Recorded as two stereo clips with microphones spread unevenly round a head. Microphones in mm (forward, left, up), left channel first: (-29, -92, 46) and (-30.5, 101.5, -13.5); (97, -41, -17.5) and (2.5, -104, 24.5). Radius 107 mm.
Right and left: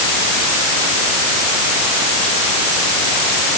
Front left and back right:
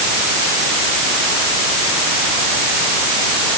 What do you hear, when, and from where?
Only background noise.